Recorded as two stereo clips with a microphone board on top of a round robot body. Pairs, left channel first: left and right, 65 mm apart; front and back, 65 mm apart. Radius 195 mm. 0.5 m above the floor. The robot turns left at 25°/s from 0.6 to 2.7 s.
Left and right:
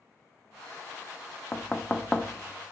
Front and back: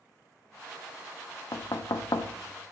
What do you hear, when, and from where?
1.5 s knocking: 25° left, 0.7 m; by 2.4 s 5° left, 0.7 m